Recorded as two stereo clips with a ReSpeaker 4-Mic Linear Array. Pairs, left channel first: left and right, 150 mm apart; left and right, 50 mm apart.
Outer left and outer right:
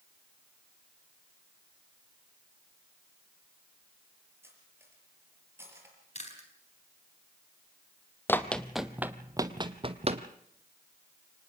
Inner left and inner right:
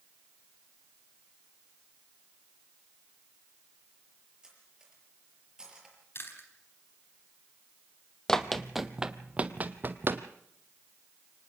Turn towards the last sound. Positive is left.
turn(degrees=-45)  # may be behind; listen again after turning